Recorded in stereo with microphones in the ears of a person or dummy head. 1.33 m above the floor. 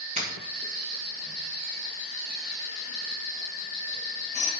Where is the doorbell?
40° right (ahead or behind), 2 m.